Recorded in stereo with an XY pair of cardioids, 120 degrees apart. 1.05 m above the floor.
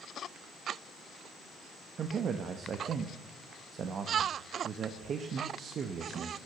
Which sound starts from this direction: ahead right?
A man speaking, at 2.0 s.